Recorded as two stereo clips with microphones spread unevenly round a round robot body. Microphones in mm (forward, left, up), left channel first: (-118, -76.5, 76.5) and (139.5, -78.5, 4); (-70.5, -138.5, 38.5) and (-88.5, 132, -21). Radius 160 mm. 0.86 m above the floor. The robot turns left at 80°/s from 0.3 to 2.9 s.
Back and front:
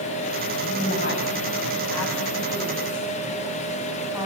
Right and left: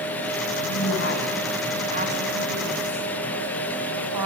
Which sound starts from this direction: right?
A woman speaking, at 0.6 s.